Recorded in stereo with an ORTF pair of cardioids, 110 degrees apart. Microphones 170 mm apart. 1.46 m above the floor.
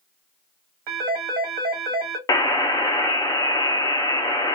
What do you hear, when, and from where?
0.9 s a phone ringing: 70° right, 1.8 m
2.3 s a buzzer: 20° left, 0.9 m